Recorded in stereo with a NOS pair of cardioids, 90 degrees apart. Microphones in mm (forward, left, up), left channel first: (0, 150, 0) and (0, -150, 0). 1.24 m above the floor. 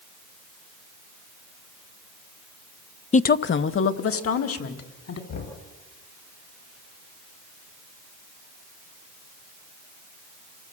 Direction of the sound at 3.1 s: 20° left.